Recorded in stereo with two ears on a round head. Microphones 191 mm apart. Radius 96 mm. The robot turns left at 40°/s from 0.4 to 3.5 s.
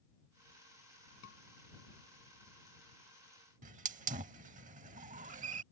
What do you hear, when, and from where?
1.2 s a scream: 65° left (ahead or behind); by 1.4 s 60° left (ahead or behind)
3.6 s a hiss: 35° right (ahead or behind)